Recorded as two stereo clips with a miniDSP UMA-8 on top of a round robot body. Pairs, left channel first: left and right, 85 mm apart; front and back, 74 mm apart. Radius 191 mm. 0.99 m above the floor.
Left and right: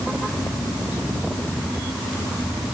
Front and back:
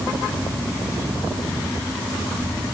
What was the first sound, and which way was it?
Only background noise.